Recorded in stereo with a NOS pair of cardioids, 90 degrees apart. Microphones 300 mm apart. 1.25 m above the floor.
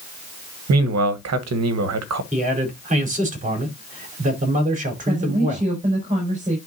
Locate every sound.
0.7 s a man speaking: 60° right, 1.3 m
2.3 s a man speaking: 25° right, 4 m
5.1 s a woman speaking: 25° right, 5 m